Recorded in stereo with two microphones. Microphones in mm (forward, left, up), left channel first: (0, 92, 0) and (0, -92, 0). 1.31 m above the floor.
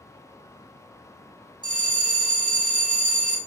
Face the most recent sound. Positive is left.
turn(degrees=-25)  # may be behind; listen again after turning